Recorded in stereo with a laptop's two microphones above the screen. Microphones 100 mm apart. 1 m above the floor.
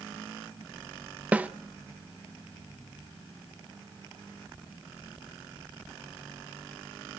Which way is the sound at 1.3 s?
15° right (ahead or behind).